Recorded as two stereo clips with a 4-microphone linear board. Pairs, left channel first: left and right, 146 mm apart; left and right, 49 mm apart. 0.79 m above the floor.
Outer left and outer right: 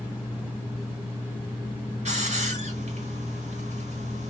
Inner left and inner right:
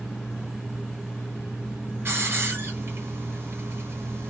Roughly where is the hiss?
Right.